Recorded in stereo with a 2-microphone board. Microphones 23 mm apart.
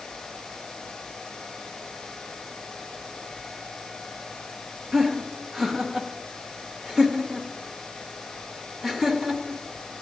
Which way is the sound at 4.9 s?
25° right (ahead or behind).